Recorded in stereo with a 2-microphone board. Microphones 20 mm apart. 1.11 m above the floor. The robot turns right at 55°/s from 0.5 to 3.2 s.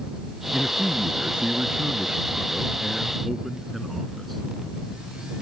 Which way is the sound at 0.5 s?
145° right.